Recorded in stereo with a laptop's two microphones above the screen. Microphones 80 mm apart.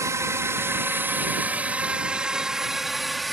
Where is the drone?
40° right (ahead or behind); by 3.4 s centre (ahead or behind).